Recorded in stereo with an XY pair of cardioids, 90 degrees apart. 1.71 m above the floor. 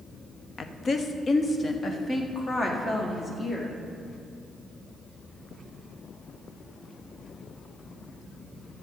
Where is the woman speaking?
55° left, 0.8 m; by 3.8 s 35° left, 2.5 m.